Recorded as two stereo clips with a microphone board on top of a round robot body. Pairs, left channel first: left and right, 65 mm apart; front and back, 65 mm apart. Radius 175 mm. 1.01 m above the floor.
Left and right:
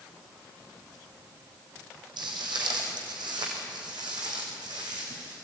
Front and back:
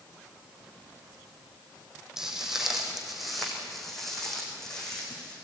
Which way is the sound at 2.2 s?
100° right.